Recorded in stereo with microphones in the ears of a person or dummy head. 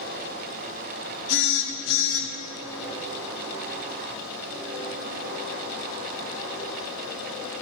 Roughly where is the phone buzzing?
Left.